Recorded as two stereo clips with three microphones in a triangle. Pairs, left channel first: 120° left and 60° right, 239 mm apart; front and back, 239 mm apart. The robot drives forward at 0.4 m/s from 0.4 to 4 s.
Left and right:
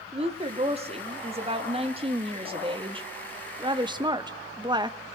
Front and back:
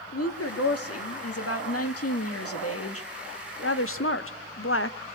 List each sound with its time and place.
0.1 s a woman speaking: 5° left, 2.5 m; by 5.0 s 10° left, 1.0 m